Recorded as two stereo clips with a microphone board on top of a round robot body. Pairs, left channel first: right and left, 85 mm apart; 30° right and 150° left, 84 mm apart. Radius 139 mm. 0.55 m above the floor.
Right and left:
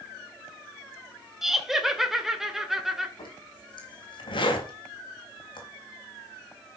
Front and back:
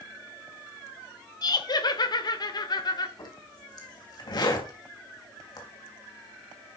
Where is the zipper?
65° right, 3.5 m.